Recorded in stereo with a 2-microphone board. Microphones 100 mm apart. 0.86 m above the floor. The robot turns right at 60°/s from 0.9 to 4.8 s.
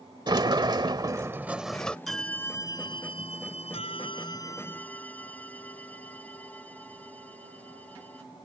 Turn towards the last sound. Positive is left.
turn(degrees=165)